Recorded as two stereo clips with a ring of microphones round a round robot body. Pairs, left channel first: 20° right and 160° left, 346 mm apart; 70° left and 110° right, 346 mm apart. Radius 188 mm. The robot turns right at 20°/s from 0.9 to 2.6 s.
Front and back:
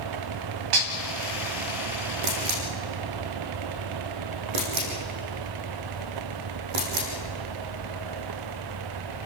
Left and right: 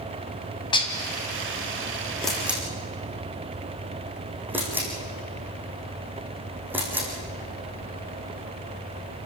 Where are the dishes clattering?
145° left, 2.5 m.